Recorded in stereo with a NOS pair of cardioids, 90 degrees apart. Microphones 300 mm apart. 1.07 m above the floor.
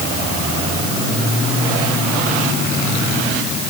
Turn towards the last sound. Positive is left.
No sound to turn to.